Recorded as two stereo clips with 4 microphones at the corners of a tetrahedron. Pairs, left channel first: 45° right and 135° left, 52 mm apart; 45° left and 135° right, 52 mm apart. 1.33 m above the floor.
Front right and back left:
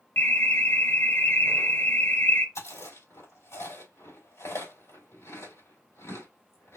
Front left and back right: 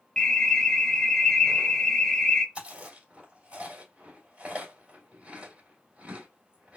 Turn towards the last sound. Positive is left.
turn(degrees=-70)